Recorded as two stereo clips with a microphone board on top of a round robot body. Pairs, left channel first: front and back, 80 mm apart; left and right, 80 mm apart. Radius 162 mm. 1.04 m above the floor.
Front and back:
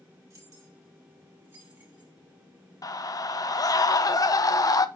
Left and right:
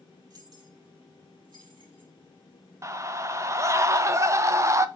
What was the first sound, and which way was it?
Keys jangling, 130° right.